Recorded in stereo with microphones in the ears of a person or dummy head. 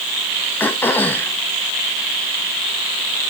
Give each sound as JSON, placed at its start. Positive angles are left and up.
{"t": 0.6, "sound": "throat clearing", "side_deg": 10, "distance_m": 1.1}